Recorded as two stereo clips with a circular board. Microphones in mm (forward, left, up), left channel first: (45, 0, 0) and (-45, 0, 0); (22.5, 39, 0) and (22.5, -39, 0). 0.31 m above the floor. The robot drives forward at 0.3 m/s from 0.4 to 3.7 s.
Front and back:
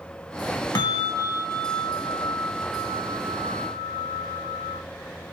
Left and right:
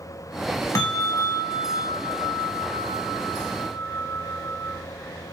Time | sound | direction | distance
0.8 | a bell | 40° left | 0.7 m